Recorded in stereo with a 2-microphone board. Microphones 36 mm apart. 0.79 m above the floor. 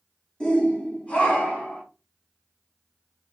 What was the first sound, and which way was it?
A shout, 20° left (ahead or behind).